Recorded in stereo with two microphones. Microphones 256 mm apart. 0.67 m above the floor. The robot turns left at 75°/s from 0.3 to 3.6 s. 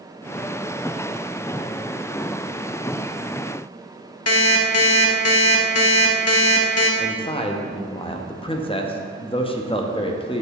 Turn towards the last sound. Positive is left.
turn(degrees=20)  # may be behind; listen again after turning